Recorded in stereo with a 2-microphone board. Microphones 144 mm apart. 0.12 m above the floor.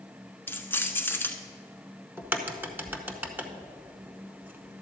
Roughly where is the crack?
Centre.